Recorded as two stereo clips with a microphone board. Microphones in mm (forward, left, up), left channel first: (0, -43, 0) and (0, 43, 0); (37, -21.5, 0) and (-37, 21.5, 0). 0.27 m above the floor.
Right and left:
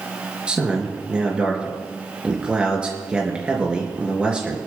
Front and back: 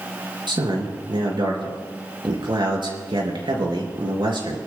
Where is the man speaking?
170° left, 4 m.